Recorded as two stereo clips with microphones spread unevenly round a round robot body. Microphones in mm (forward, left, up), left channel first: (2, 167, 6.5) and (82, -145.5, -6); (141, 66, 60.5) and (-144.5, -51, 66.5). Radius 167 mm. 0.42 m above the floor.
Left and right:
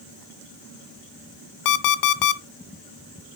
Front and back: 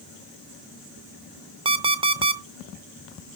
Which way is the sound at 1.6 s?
130° left.